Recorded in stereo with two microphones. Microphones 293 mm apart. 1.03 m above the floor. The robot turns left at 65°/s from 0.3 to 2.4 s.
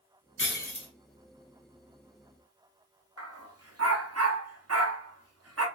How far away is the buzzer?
I don't hear a buzzer.